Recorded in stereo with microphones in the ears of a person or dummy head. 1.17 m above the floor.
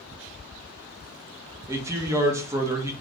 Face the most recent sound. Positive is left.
turn(degrees=-15)  # may be behind; listen again after turning